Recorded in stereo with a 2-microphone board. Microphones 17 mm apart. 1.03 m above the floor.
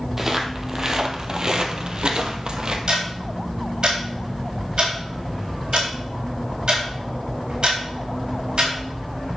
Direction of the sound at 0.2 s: 20° right (ahead or behind).